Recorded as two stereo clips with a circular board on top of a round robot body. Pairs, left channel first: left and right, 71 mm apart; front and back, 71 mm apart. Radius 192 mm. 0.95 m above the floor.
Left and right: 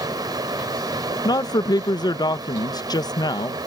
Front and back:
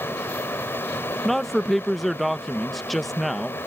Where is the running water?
60° right.